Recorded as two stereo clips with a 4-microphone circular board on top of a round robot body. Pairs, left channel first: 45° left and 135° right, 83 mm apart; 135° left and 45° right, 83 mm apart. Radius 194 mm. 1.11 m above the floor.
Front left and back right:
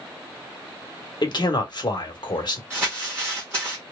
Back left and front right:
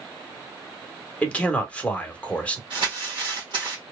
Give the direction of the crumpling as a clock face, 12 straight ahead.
2 o'clock.